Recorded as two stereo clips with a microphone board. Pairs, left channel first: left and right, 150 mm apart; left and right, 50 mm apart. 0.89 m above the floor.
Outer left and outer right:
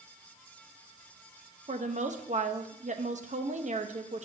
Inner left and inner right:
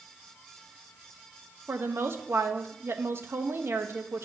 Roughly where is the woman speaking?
Right.